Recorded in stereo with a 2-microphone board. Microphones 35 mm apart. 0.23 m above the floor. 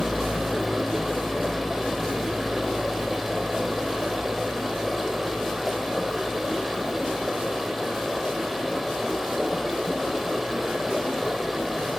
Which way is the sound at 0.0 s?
10° right (ahead or behind).